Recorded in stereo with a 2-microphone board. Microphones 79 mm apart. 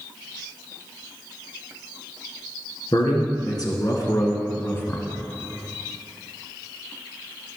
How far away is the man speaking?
About 2.5 m.